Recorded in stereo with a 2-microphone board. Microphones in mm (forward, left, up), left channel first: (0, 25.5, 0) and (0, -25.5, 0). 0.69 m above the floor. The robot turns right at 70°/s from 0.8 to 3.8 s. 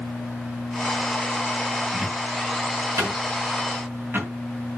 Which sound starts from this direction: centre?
A cupboard door, at 1.9 s.